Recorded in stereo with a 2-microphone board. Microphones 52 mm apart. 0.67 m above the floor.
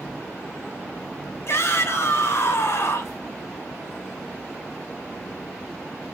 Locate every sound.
1.5 s a shout: 50° left (ahead or behind), 3.5 m